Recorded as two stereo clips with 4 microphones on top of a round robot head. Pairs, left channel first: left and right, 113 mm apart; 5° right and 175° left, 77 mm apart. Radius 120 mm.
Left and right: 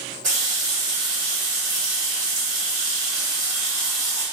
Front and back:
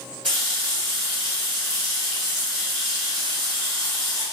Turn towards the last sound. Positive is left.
turn(degrees=-90)